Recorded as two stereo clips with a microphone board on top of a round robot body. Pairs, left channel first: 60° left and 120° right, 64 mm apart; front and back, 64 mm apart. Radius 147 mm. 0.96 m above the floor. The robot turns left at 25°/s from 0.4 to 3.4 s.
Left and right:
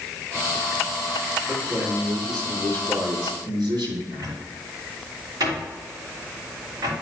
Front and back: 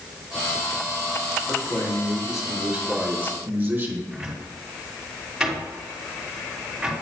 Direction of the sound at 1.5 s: 70° right.